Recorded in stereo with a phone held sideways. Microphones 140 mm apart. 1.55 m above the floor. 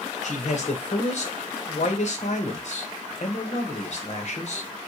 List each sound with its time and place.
0.2 s a man speaking: 55° left (ahead or behind), 0.8 m